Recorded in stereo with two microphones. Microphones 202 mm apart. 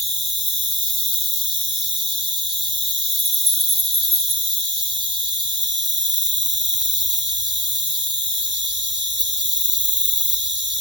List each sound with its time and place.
0.0 s an insect: 60° right (ahead or behind), 0.8 m